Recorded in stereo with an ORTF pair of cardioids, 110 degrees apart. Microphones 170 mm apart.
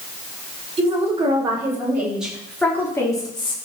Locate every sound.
0.8 s a woman speaking: 30° right, 4.5 m; by 3.5 s 30° left, 3.5 m